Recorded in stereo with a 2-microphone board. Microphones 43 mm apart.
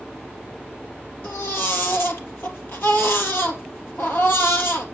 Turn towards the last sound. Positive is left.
turn(degrees=60)  # may be behind; listen again after turning